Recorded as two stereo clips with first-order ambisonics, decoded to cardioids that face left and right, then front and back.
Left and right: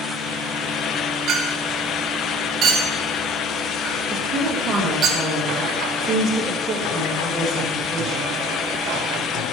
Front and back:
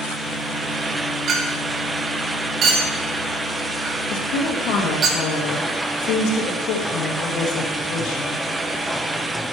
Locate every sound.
1.3 s a clink: 135° right, 1.3 m
4.1 s a woman speaking: 25° right, 2.5 m